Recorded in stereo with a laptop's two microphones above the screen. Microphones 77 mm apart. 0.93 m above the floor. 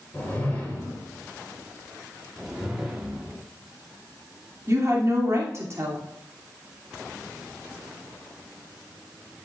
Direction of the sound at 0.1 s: 20° left (ahead or behind).